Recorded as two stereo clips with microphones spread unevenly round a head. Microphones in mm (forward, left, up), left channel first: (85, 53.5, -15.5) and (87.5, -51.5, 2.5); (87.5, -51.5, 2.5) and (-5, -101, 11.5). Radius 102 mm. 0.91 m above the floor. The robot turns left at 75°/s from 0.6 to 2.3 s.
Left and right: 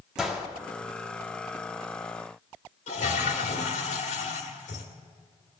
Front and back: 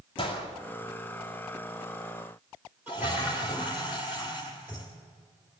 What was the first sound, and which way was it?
A gunshot, straight ahead.